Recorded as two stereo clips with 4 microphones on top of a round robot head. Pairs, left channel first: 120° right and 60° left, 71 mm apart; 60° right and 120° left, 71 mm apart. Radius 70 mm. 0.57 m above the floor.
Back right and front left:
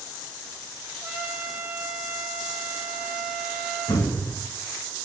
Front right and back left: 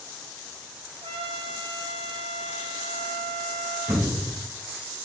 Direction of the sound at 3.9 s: 165° right.